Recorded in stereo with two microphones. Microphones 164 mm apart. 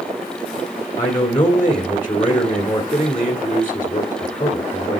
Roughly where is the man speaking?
Left.